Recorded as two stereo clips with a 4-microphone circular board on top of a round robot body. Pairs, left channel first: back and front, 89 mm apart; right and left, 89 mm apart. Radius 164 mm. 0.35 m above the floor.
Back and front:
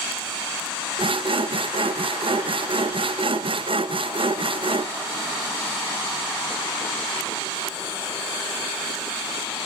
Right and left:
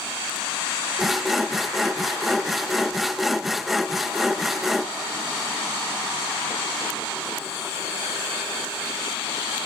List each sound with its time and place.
1.0 s sawing: straight ahead, 0.7 m